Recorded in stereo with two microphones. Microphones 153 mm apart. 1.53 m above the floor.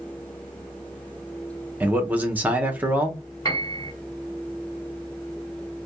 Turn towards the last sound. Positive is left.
turn(degrees=25)  # may be behind; listen again after turning